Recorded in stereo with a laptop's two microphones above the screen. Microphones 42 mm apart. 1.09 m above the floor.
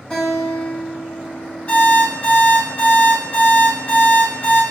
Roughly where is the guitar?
Left.